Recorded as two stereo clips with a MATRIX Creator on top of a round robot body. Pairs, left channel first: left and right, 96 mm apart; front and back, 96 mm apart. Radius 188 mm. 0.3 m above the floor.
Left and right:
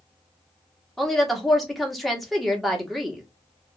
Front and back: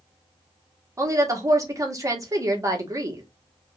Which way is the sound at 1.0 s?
Straight behind.